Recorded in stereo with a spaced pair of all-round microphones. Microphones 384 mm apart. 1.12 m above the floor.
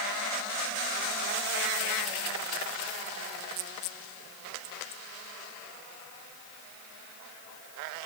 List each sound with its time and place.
Only background noise.